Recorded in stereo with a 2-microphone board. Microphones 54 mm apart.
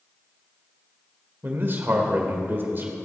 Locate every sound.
1.4 s a man speaking: 40° right (ahead or behind), 1.7 m